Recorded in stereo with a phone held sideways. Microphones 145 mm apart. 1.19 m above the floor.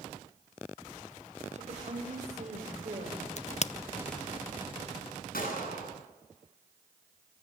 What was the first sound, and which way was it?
A woman speaking, 55° right (ahead or behind).